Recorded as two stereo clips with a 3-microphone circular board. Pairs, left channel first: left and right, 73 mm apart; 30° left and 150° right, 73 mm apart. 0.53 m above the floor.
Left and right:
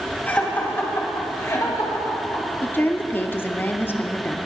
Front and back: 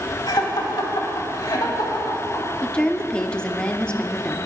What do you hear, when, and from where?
0.3 s laughter: 20° left, 3.5 m; by 2.5 s 65° left, 3 m
2.6 s a woman speaking: 95° left, 0.7 m